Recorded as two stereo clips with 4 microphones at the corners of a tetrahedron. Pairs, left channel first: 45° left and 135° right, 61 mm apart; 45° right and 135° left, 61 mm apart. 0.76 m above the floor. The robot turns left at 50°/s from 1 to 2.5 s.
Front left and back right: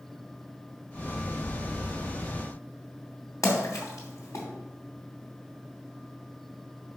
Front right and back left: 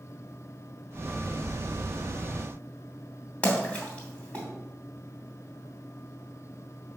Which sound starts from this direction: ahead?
A splash, at 3.4 s.